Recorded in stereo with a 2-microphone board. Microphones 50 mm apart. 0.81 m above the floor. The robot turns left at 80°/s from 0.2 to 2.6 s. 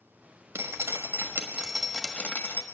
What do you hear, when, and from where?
0.6 s dripping: 75° right, 1.2 m; by 2.6 s 120° left, 1.2 m